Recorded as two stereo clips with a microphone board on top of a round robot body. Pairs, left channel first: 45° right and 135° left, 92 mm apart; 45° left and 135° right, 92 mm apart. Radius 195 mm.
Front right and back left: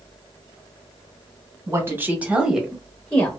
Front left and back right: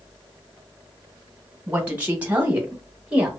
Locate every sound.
1.7 s a woman speaking: 165° left, 1.4 m; by 3.3 s 75° right, 1.3 m